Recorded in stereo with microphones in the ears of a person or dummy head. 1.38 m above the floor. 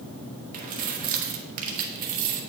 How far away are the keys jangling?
About 0.9 m.